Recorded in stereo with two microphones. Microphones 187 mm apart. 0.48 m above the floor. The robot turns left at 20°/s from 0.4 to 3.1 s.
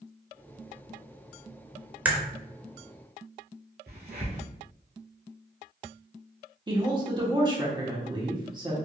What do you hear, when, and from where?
2.0 s a crack: 10° right (ahead or behind), 0.6 m
3.9 s a crack: 60° right (ahead or behind), 1.6 m
6.7 s a woman speaking: 25° right (ahead or behind), 1.0 m